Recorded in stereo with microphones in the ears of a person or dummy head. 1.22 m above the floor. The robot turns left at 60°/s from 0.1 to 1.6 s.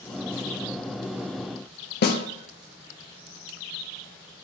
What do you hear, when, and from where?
2.0 s a snare drum: 45° left (ahead or behind), 1.0 m